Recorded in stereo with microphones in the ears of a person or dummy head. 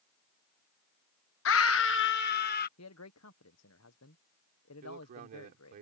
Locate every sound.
1.4 s a scream: 65° left (ahead or behind); by 2.7 s 50° left (ahead or behind)
2.8 s a man speaking: 80° left
4.8 s a man speaking: 50° right (ahead or behind)